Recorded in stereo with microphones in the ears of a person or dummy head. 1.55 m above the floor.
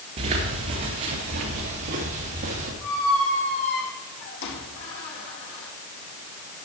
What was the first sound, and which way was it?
Footsteps, 40° right (ahead or behind).